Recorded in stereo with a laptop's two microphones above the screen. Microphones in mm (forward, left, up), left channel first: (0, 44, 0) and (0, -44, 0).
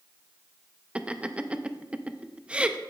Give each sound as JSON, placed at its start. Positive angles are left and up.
{"t": 0.9, "sound": "laughter", "side_deg": -15, "distance_m": 0.6}